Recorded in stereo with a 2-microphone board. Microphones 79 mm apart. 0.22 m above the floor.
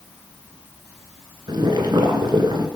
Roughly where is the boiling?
Right.